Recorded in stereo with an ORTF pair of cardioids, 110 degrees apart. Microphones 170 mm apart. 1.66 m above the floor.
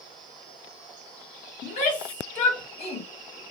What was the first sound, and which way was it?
A shout, 60° left.